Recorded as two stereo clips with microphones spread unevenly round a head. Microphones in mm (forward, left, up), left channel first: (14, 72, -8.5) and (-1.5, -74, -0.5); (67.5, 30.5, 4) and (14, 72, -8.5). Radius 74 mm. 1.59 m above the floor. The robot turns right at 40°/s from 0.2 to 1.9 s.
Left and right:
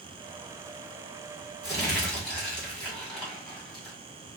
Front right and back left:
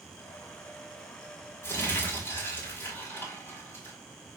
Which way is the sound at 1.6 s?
15° right.